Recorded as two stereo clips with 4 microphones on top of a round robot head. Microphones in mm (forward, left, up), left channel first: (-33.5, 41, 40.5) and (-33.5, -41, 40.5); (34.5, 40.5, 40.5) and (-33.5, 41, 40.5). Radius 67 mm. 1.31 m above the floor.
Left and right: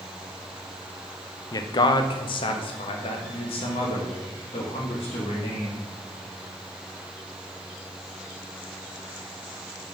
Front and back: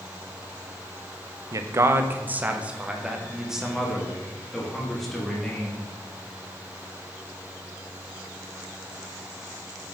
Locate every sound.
1.5 s a man speaking: 140° left, 0.7 m; by 5.8 s 85° left, 2.5 m